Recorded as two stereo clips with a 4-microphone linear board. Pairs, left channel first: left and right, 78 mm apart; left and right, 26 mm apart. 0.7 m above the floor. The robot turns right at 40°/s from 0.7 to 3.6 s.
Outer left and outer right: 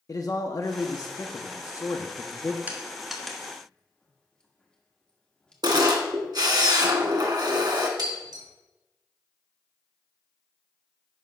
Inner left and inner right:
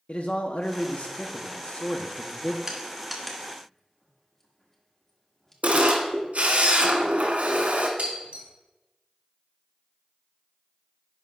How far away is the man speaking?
About 0.7 m.